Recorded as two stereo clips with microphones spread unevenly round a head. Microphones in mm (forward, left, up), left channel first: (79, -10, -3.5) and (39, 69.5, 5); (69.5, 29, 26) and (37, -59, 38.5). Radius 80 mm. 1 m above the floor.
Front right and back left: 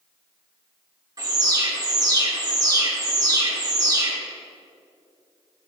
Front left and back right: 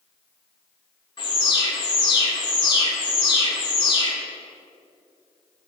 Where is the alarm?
75° left, 2.5 m.